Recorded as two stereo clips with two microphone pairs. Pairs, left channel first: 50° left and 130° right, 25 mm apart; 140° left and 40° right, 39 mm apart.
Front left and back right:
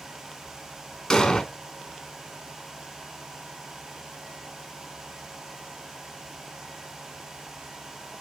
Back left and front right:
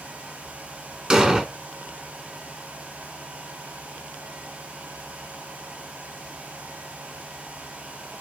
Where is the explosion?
5° left, 0.8 m.